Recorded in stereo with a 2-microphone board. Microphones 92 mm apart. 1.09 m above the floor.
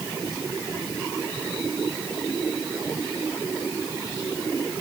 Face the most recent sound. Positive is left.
No sound to turn to.